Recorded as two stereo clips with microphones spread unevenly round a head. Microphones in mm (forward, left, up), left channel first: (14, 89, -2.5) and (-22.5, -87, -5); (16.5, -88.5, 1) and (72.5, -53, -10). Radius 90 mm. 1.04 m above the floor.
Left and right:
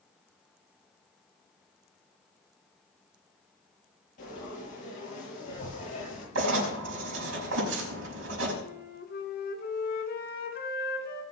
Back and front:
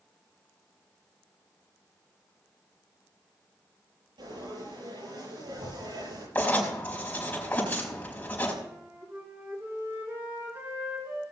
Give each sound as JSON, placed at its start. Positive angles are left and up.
{"t": 4.2, "sound": "frying", "azimuth_deg": 30, "distance_m": 8.0}
{"t": 6.3, "sound": "writing", "azimuth_deg": -85, "distance_m": 5.0}
{"t": 8.6, "sound": "a flute", "azimuth_deg": 110, "distance_m": 2.5}